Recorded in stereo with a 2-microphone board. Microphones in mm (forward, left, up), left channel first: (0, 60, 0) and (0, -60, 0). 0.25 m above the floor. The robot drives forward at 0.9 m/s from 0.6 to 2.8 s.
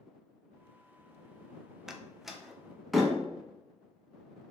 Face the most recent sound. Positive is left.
turn(degrees=0)  # may be behind; listen again after turning